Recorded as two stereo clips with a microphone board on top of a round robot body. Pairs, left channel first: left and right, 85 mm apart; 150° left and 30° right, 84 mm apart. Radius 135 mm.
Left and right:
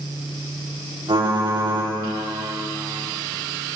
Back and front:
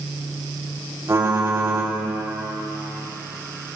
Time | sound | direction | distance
1.1 | typing on a keyboard | 85° right | 3.5 m